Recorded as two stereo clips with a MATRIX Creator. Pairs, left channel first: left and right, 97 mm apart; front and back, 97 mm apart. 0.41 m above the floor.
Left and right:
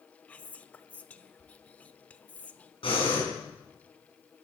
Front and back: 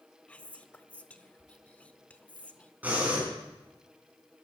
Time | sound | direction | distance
0.3 | whispering | 45° left | 0.7 m
2.8 | breathing | 105° left | 5 m